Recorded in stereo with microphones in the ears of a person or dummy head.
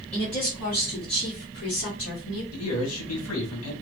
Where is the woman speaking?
35° left (ahead or behind), 1.5 m; by 2.4 s 70° left (ahead or behind), 1.9 m.